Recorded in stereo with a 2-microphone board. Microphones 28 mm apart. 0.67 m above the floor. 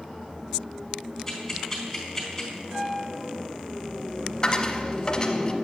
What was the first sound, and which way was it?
Ticking, 10° left (ahead or behind).